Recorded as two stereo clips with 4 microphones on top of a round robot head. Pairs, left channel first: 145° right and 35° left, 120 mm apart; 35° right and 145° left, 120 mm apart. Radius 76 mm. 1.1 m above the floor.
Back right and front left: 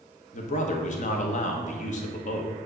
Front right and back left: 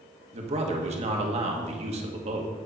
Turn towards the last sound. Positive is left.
turn(degrees=-175)